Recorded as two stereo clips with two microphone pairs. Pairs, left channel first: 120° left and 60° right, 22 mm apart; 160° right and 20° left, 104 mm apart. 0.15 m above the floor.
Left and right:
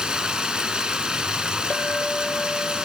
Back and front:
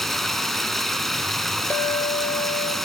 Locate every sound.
0.0 s running water: 75° right, 1.4 m
1.7 s a clink: 135° left, 1.9 m